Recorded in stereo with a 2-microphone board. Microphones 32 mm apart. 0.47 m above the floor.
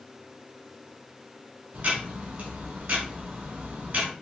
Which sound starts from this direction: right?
Ticking, at 1.7 s.